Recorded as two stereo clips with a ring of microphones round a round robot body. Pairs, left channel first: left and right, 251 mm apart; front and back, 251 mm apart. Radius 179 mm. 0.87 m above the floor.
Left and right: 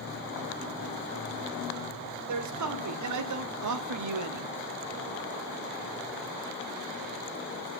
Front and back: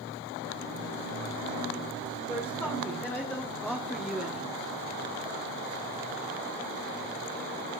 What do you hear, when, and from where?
2.3 s a man speaking: 85° right, 2.5 m; by 4.5 s 95° right, 1.0 m